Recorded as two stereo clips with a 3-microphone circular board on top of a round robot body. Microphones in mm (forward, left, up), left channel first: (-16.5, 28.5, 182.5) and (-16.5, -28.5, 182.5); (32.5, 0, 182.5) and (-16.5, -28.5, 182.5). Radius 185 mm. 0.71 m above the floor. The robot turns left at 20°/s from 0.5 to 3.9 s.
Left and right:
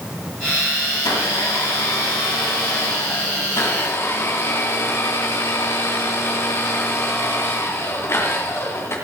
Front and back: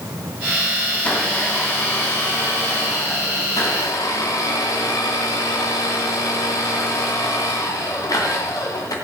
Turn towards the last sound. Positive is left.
turn(degrees=45)